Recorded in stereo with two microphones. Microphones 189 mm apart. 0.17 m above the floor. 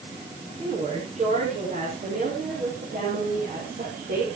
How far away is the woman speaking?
About 10 m.